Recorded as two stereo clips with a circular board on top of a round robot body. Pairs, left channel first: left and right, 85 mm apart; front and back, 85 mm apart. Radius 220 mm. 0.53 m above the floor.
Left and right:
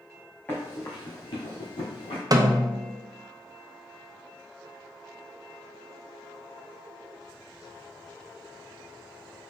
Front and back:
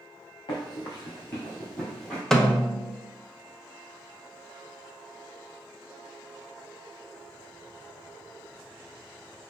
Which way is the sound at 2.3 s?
80° right.